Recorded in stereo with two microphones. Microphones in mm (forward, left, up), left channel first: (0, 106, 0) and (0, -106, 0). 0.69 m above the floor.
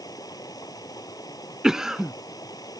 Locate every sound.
0.0 s running water: 20° left (ahead or behind)
1.6 s a cough: centre (ahead or behind)